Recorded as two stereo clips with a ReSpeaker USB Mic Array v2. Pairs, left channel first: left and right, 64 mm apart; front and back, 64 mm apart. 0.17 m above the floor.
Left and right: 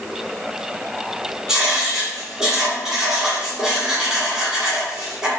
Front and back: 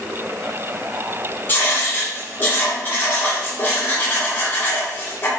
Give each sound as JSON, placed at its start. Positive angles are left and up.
{"t": 1.5, "sound": "writing", "azimuth_deg": -10, "distance_m": 1.3}